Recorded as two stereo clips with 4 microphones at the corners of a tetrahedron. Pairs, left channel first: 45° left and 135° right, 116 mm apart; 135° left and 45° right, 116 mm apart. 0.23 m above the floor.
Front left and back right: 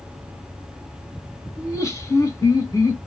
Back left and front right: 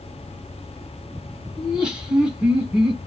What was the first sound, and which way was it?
Laughter, 25° left.